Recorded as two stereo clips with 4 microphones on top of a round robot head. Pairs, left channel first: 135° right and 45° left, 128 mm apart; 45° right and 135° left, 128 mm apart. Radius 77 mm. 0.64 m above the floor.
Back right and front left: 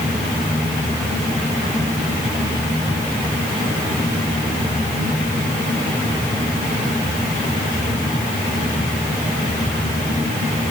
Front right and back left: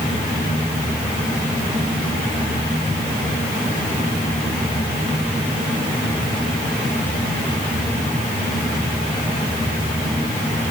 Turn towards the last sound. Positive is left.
No sound to turn to.